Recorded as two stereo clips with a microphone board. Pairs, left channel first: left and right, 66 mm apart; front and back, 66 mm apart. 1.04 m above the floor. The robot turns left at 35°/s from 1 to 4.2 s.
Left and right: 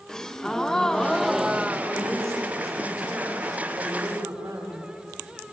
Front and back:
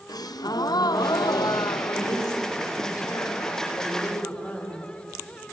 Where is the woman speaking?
25° left, 6 m; by 4.8 s 60° right, 6 m.